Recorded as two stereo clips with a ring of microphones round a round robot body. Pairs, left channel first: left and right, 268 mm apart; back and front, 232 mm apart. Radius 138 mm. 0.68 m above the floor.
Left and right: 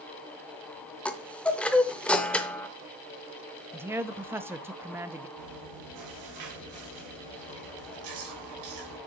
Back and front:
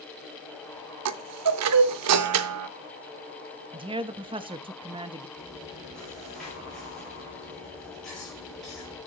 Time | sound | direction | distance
1.1 | a chime | 5° left | 0.6 m
3.7 | a man speaking | 20° right | 0.6 m
5.4 | chewing | 90° right | 3 m